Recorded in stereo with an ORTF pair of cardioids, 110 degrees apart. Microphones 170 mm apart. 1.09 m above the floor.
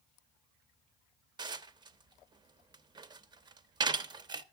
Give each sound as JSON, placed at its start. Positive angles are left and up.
{"t": 1.4, "sound": "dishes clattering", "azimuth_deg": -25, "distance_m": 0.7}